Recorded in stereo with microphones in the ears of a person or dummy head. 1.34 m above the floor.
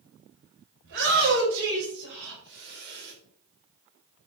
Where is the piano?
I don't hear a piano.